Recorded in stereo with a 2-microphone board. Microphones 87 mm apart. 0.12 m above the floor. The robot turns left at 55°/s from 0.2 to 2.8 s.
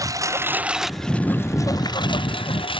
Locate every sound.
0.0 s a lawn mower: 140° right; by 2.8 s 75° left